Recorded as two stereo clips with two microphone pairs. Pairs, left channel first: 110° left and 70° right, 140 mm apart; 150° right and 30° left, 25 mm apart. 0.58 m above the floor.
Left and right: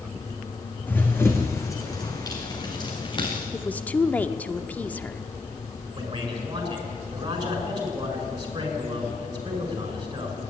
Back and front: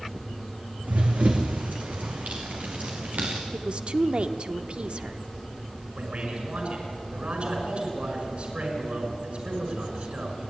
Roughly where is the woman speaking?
Ahead left.